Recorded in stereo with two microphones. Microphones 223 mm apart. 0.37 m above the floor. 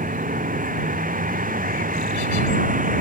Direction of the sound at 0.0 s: 40° right (ahead or behind).